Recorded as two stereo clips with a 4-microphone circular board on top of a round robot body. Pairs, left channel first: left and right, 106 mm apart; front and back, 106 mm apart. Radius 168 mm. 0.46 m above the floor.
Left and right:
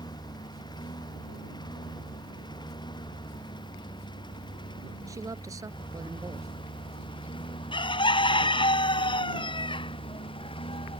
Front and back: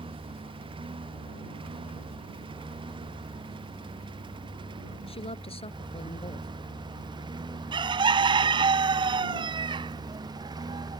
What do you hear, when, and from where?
0.0 s a lawn mower: 140° left; by 11.0 s 125° left
5.1 s a woman speaking: 30° right
7.7 s a bird: 135° left